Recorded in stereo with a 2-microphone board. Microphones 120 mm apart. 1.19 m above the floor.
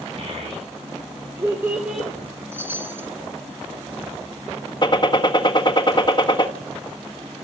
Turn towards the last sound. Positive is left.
turn(degrees=40)  # may be behind; listen again after turning